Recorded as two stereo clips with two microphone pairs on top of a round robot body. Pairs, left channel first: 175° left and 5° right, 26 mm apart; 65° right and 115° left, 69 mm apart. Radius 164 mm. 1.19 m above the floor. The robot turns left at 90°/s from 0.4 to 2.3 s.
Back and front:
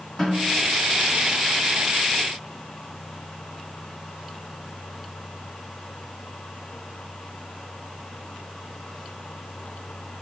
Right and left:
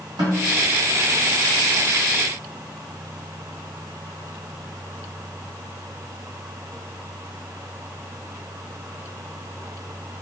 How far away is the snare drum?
About 2 m.